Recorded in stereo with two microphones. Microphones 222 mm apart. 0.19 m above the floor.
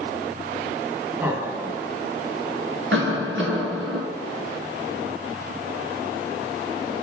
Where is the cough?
60° right (ahead or behind), 2.5 m.